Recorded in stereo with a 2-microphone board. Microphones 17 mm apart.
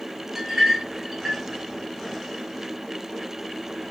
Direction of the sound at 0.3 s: 15° right (ahead or behind).